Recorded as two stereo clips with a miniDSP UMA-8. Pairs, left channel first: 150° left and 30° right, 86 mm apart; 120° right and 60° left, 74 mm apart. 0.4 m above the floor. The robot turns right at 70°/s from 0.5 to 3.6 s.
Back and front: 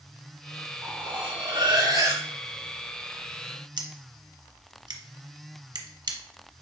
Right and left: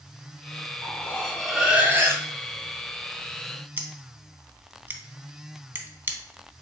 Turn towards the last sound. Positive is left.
turn(degrees=0)